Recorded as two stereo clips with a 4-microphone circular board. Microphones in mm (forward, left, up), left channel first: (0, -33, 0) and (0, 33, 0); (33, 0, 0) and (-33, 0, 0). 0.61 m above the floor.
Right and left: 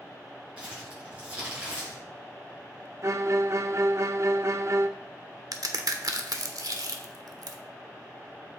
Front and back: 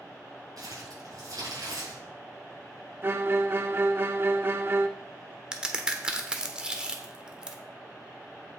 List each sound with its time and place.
0.6 s crumpling: 165° left, 5 m
3.0 s a violin: 130° left, 0.5 m
5.5 s a crack: 105° left, 1.0 m